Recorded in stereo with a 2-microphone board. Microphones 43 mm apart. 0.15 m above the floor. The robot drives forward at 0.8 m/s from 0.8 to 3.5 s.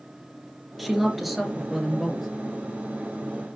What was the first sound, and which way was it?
A woman speaking, 5° right (ahead or behind).